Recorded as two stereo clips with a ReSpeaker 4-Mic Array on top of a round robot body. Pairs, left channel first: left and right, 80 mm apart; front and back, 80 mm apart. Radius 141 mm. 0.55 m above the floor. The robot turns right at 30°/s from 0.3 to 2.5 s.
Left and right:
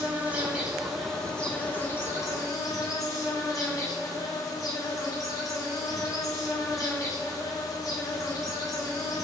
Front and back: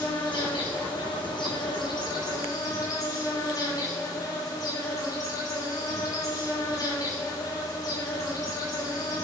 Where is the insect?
20° right, 4 m; by 9.2 s 45° left, 4 m.